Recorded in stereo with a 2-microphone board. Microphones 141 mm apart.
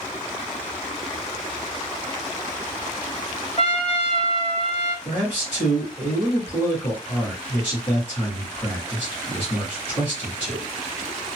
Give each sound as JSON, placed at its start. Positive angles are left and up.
{"t": 3.6, "sound": "a trumpet", "side_deg": 45, "distance_m": 0.6}
{"t": 5.0, "sound": "a man speaking", "side_deg": 40, "distance_m": 1.8}